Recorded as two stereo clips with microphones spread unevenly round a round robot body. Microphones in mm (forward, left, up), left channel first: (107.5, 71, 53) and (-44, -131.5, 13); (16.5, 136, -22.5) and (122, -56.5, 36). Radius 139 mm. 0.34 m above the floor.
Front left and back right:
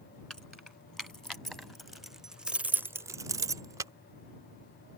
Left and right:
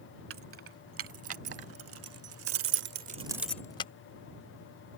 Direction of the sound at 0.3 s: 35° right.